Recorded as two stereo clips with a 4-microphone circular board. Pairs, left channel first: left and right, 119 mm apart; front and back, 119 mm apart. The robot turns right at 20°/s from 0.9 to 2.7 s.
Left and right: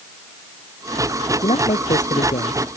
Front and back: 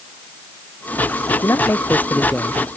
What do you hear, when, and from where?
1.4 s a man speaking: 65° left; by 2.6 s 85° left